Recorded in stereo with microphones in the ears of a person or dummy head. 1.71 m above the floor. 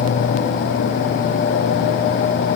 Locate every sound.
Only background noise.